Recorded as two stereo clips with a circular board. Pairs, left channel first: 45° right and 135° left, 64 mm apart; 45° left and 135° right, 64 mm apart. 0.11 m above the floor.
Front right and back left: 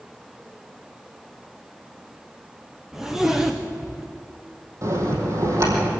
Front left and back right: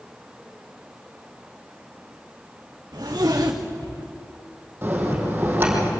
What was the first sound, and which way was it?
A zipper, 145° right.